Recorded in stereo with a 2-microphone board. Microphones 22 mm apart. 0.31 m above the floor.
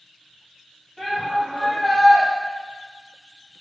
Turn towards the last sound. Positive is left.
turn(degrees=0)  # may be behind; listen again after turning